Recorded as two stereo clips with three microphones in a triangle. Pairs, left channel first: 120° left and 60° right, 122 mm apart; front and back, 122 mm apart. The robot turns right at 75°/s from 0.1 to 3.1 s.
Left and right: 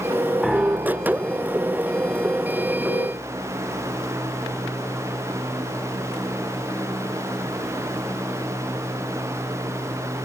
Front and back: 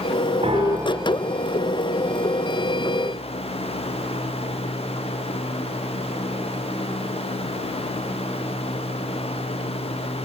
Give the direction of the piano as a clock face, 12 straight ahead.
5 o'clock.